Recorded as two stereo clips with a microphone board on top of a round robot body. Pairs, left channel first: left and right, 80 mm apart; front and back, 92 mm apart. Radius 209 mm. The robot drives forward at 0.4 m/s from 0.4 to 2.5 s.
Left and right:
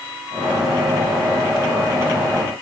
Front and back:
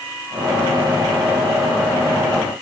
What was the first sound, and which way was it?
Only background noise.